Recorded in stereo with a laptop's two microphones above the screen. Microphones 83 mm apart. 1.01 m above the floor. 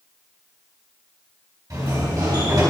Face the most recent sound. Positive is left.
turn(degrees=-45)  # may be behind; listen again after turning